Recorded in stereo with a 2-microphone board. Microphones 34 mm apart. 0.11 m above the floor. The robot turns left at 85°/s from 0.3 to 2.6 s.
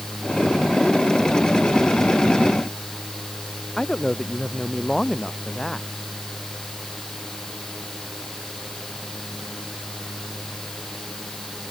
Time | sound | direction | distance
3.8 | a man speaking | 15° left (ahead or behind) | ?